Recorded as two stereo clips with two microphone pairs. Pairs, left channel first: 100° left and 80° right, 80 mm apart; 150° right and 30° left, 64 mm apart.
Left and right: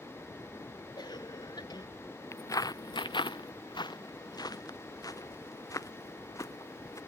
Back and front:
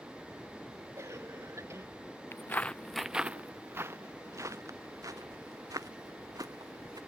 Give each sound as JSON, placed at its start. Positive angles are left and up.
{"t": 1.0, "sound": "a cough", "azimuth_deg": 75}
{"t": 2.3, "sound": "footsteps", "azimuth_deg": 160}